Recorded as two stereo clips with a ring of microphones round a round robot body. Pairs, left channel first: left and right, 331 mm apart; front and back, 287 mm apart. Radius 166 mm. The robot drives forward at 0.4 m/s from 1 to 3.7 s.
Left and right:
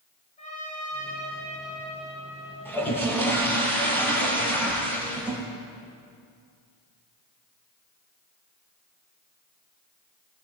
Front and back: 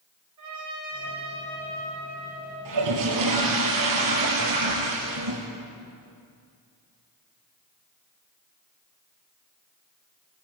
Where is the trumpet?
160° left, 8.5 m.